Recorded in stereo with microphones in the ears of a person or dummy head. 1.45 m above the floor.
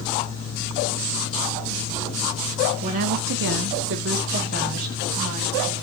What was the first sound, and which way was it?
A woman speaking, 30° right (ahead or behind).